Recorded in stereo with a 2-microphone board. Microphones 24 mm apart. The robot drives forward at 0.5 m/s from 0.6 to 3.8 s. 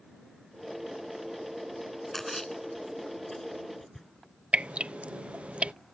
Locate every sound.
2.1 s a splash: 15° left (ahead or behind)
4.5 s dripping: 65° right (ahead or behind)